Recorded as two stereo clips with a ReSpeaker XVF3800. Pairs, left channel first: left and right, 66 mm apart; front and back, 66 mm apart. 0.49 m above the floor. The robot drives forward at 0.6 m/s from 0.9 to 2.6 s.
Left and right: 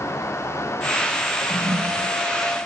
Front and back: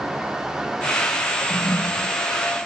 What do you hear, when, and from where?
1.4 s a toilet flushing: 65° right; by 2.2 s 70° right